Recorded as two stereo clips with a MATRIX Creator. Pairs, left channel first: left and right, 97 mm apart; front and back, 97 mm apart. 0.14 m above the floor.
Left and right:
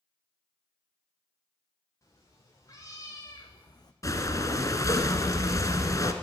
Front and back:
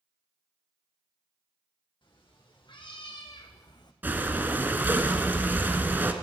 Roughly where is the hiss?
I don't hear a hiss.